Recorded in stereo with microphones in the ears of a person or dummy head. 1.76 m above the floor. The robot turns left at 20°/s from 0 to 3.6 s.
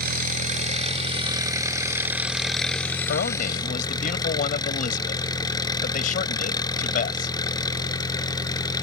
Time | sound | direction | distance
0.0 | an engine running | 130° right | ?
3.1 | a man speaking | 50° left (ahead or behind) | ?